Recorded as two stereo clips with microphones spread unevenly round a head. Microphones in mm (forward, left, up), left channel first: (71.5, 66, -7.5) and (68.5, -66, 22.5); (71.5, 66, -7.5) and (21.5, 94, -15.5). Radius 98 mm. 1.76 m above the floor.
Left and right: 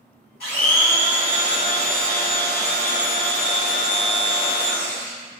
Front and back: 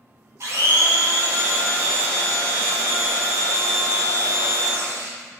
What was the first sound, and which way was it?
A blender, 120° left.